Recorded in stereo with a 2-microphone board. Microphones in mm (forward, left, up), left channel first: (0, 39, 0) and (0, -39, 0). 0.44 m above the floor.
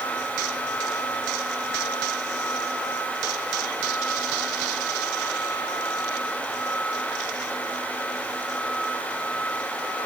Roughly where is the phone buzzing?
I don't hear a phone buzzing.